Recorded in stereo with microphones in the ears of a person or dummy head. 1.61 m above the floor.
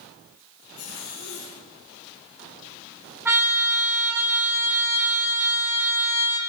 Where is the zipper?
80° left, 7.5 m.